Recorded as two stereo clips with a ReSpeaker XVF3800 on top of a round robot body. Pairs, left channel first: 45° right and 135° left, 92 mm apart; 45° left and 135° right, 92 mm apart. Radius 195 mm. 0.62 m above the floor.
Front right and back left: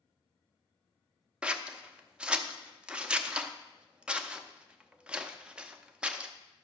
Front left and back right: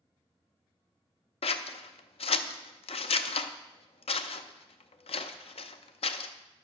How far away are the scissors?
About 0.6 m.